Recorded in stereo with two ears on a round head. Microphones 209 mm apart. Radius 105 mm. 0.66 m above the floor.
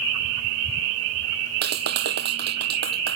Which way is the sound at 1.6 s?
45° right (ahead or behind).